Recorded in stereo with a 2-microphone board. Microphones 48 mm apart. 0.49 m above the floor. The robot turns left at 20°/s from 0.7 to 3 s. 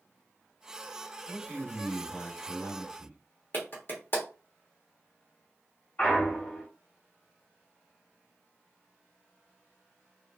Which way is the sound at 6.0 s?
45° left (ahead or behind).